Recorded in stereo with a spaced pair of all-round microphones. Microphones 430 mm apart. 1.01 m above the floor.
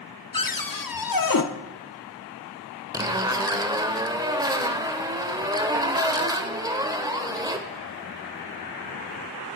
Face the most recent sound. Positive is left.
turn(degrees=-10)  # may be behind; listen again after turning